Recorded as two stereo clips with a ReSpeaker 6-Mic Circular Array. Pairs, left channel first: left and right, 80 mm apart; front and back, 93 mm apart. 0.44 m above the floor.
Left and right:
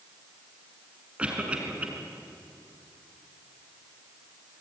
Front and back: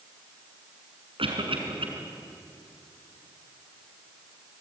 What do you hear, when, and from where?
1.2 s a cough: 165° right, 5 m